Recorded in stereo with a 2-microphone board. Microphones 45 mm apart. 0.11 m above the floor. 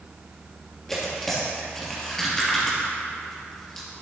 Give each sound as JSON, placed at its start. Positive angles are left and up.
{"t": 0.9, "sound": "tearing paper", "side_deg": 10, "distance_m": 3.0}